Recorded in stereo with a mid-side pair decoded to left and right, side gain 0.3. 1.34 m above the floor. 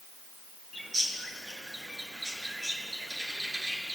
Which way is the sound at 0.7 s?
30° right.